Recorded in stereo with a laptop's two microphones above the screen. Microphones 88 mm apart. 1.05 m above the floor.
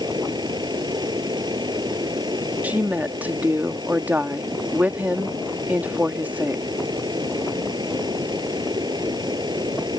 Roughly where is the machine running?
Right.